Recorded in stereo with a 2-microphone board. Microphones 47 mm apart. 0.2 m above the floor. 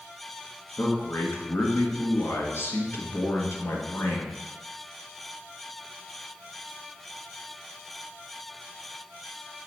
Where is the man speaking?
65° left (ahead or behind), 2 m.